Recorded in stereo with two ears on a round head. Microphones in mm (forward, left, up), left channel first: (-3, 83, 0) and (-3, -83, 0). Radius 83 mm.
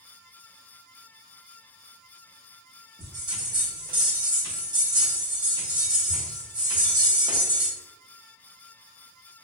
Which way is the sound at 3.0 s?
20° right (ahead or behind).